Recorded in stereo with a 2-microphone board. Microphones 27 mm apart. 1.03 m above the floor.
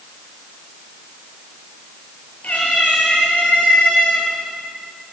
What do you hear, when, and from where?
2.4 s a cat meowing: 60° left (ahead or behind), 8 m; by 4.3 s 65° left (ahead or behind), 7 m